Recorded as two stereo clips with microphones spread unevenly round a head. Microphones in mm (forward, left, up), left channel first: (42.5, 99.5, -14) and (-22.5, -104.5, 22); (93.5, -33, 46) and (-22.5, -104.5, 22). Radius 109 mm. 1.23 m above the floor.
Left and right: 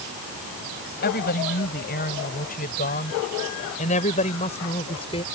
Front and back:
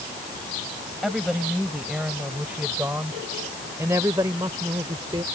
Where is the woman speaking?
120° left; by 5.2 s 140° left.